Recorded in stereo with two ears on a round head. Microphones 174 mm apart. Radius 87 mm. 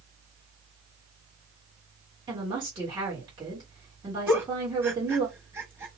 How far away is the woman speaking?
About 1.3 m.